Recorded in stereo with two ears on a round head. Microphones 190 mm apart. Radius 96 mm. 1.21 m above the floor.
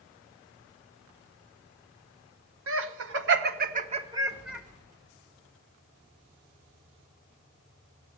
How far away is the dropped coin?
I don't hear a dropped coin.